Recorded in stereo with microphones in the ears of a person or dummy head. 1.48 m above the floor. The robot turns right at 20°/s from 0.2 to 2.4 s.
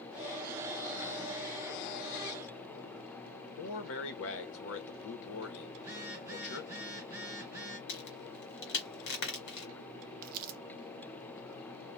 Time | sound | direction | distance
3.6 | a man speaking | 75° left (ahead or behind) | 0.8 m
5.8 | a phone buzzing | 15° right (ahead or behind) | 1.0 m
7.9 | a crack | 60° left (ahead or behind) | 1.3 m
10.2 | crumpling | 50° right (ahead or behind) | 0.5 m